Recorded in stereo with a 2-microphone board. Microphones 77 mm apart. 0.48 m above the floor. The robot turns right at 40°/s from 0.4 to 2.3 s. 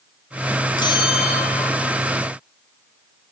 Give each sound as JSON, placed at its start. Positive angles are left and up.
{"t": 0.8, "sound": "a bell", "azimuth_deg": 70, "distance_m": 1.5}